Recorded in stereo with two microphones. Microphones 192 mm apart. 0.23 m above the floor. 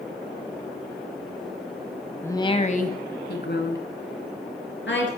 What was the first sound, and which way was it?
A woman speaking, 10° left (ahead or behind).